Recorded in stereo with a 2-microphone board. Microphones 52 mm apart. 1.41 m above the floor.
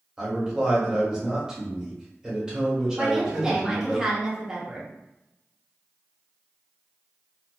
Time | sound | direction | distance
0.2 | a man speaking | 15° right (ahead or behind) | 1.2 m
3.0 | a woman speaking | 10° right (ahead or behind) | 0.8 m